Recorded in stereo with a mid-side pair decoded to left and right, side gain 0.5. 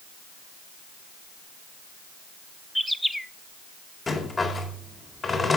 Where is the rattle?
30° left, 4 m.